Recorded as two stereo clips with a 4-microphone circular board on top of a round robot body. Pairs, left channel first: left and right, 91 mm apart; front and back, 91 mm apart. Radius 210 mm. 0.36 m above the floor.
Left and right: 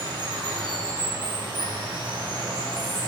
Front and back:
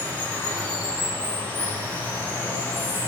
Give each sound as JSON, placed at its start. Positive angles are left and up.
{"t": 0.0, "sound": "running water", "azimuth_deg": -70, "distance_m": 1.8}